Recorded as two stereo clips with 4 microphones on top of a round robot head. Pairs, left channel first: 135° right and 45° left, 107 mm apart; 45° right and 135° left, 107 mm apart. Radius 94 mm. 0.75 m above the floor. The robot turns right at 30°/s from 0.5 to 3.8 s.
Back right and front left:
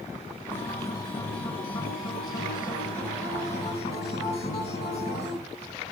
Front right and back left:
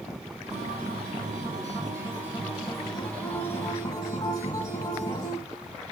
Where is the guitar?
155° left, 3.5 m; by 5.4 s 105° right, 3.5 m.